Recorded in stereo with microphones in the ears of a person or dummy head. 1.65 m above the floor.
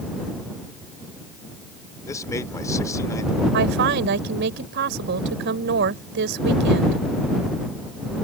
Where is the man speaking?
15° left (ahead or behind).